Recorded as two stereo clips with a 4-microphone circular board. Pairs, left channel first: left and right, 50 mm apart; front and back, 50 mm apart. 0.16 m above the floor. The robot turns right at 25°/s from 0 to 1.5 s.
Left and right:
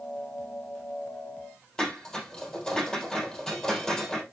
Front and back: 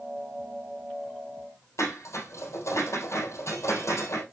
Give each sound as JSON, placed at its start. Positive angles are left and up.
{"t": 1.8, "sound": "dishes clattering", "azimuth_deg": 10, "distance_m": 3.0}